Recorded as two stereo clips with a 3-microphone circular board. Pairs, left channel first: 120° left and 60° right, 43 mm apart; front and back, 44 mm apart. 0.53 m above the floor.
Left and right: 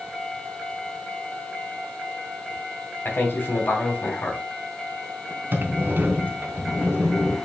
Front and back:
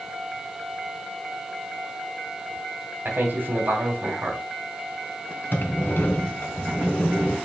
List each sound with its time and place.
3.0 s a man speaking: 150° left, 3 m
5.5 s a sliding door: 30° right, 2.5 m